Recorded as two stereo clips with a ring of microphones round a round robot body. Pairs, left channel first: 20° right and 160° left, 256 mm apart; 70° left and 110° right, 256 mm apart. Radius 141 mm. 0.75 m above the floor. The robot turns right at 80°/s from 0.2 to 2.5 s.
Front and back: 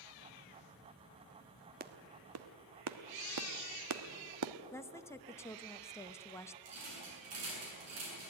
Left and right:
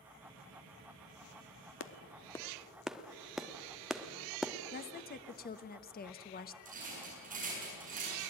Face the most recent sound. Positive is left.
turn(degrees=-170)